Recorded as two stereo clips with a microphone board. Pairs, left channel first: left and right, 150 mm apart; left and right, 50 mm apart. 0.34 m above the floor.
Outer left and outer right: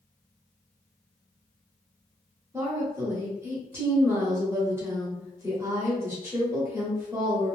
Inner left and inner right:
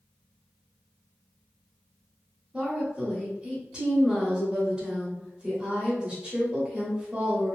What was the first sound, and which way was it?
A woman speaking, 15° right (ahead or behind).